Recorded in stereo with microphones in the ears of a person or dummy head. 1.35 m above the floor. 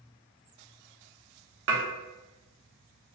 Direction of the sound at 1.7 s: 70° right (ahead or behind).